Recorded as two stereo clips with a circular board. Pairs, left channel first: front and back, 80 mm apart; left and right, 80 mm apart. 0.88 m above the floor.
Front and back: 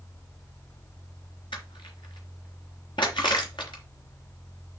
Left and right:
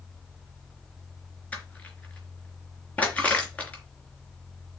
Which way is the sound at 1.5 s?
15° left.